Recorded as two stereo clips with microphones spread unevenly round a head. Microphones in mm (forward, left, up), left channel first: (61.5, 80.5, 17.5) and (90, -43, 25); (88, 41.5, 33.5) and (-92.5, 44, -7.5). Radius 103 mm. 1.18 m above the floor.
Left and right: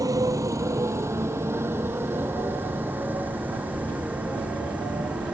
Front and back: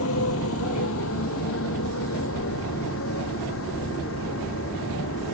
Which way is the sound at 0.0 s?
15° right.